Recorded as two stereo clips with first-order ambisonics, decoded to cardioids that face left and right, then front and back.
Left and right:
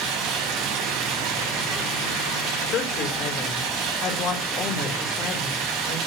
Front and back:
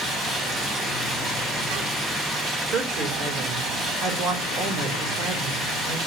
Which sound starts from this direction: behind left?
A woman speaking, at 2.7 s.